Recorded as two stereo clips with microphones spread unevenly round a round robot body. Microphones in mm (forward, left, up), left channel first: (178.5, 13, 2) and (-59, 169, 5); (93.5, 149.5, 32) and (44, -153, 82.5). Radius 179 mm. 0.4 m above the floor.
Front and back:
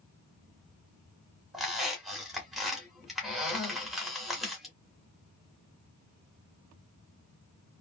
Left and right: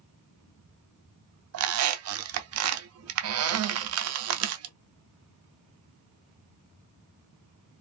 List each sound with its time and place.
1.5 s a squeak: 125° right, 0.6 m